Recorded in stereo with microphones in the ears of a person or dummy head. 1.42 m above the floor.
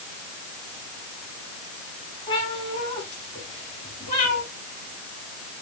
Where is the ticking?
I don't hear ticking.